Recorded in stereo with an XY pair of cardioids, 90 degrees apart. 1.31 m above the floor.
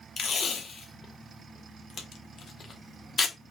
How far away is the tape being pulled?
About 1.1 m.